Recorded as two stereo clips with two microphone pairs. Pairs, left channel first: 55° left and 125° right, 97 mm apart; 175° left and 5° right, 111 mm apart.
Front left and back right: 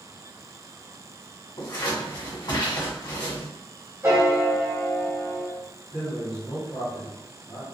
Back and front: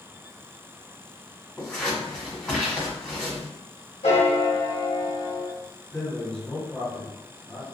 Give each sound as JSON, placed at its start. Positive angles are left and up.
{"t": 1.6, "sound": "scissors", "azimuth_deg": 90, "distance_m": 1.5}
{"t": 4.0, "sound": "a piano", "azimuth_deg": 175, "distance_m": 1.1}
{"t": 5.9, "sound": "a man speaking", "azimuth_deg": 95, "distance_m": 1.5}